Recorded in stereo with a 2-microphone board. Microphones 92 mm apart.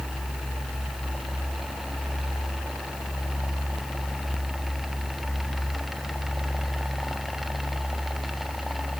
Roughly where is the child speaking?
I don't hear a child speaking.